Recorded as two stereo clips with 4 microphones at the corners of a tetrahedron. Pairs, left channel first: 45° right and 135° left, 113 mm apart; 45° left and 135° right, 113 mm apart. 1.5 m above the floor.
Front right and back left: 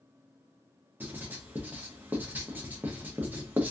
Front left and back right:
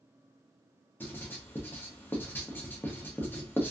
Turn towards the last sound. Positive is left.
turn(degrees=85)